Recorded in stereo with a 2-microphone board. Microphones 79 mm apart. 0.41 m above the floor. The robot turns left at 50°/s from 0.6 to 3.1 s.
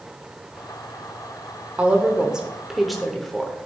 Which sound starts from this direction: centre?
A woman speaking, at 1.8 s.